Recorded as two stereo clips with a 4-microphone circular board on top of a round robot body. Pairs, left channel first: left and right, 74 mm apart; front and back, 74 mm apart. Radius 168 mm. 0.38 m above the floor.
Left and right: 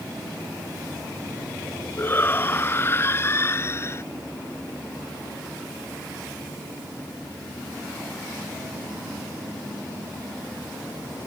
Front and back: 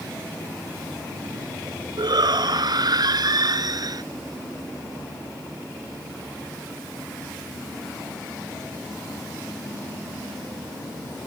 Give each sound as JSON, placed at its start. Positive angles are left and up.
{"t": 2.0, "sound": "a shout", "azimuth_deg": 155}